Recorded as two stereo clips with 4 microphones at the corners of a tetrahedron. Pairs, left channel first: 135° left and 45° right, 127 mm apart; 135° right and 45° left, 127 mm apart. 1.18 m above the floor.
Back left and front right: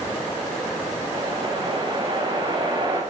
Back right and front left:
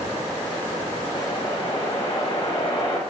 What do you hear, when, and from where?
1.1 s a whoosh: 95° right, 6 m